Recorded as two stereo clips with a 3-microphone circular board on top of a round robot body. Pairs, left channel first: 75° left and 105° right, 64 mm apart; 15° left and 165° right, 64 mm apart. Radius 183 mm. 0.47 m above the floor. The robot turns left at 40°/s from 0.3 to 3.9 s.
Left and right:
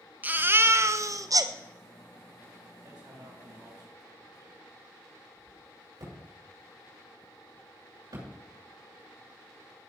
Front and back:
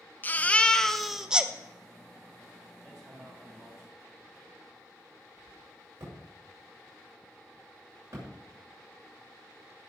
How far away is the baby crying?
About 1.0 m.